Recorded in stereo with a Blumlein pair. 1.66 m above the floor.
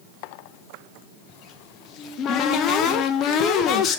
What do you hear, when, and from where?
1.3 s a cupboard door: 30° left, 1.0 m